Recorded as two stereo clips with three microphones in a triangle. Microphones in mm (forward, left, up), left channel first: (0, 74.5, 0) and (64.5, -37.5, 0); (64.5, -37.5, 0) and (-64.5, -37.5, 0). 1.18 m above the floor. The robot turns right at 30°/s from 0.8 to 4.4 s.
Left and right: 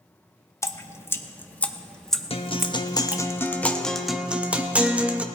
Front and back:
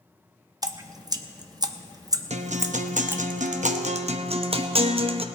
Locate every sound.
0.6 s dripping: 165° left, 0.6 m; by 3.2 s 125° right, 0.6 m
2.3 s a guitar: 160° left, 0.8 m; by 5.2 s 140° right, 0.8 m